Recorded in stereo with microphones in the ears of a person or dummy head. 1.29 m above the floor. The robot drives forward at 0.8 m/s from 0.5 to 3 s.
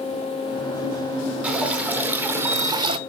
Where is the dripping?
10° right (ahead or behind), 1.6 m; by 3.0 s 35° right (ahead or behind), 0.5 m.